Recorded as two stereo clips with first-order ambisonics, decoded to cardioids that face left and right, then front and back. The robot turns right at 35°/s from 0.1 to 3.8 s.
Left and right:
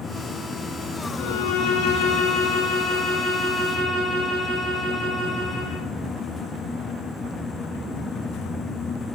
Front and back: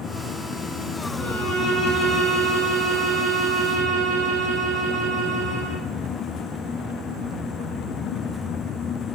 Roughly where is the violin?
Left.